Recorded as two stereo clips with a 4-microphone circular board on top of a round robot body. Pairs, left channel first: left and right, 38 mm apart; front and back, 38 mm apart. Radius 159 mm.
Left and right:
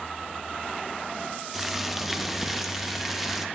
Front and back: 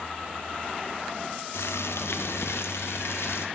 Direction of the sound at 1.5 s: 5° right.